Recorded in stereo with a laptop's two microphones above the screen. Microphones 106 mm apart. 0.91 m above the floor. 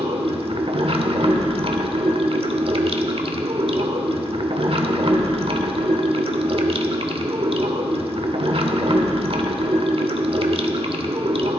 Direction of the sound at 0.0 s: 60° right (ahead or behind).